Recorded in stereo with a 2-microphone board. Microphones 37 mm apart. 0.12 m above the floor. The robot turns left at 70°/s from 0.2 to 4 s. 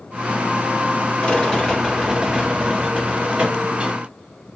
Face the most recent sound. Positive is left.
turn(degrees=-150)